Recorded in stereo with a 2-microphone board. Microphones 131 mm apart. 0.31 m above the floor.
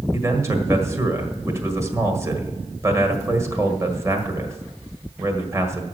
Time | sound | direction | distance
0.1 | a man speaking | 20° right (ahead or behind) | 1.5 m